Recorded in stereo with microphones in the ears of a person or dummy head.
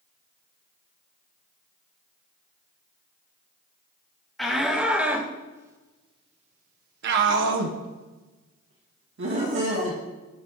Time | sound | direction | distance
4.4 | a shout | 5° left (ahead or behind) | 3.5 m